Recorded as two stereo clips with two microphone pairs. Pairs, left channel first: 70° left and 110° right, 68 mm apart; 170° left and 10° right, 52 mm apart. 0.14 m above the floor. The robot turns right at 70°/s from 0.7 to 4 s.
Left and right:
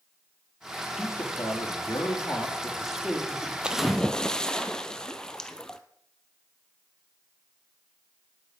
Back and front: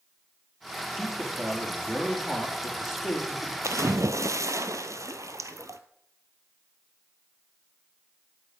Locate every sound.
1.0 s a man speaking: 30° left, 4 m; by 3.5 s 150° right, 4 m
3.6 s a splash: 30° right, 0.8 m; by 5.8 s 5° right, 0.8 m